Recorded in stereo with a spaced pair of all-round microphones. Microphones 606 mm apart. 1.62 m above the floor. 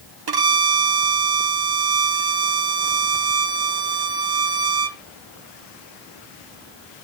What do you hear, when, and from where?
0.3 s a violin: 40° right (ahead or behind), 0.7 m